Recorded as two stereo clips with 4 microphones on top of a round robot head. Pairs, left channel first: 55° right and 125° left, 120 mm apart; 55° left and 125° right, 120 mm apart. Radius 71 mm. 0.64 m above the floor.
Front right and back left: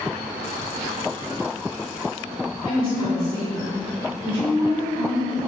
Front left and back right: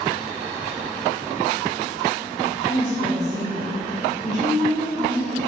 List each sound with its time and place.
2.6 s a woman speaking: 95° right, 1.3 m